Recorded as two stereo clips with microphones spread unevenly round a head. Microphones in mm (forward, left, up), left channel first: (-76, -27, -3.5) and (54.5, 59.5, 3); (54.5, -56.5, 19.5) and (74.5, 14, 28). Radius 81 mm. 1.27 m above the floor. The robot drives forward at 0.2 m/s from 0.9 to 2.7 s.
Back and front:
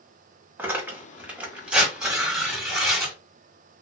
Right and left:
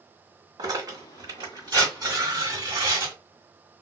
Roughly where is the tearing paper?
Behind left.